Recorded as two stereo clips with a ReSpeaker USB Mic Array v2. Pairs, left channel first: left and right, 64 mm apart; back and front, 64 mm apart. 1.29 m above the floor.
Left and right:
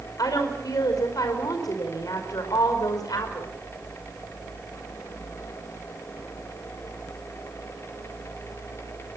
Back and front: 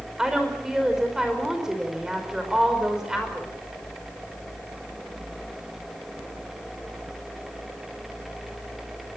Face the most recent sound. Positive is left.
turn(degrees=80)